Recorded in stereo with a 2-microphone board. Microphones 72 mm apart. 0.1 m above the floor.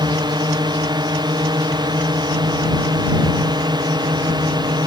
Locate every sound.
0.0 s a drone: 75° right (ahead or behind)